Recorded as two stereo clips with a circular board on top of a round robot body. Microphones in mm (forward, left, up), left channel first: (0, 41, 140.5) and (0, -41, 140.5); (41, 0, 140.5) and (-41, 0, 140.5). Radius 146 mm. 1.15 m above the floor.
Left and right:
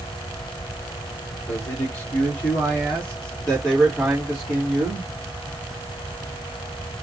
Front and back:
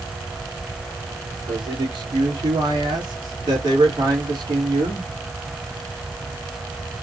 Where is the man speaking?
150° left, 3 m; by 5.1 s 175° right, 3.5 m.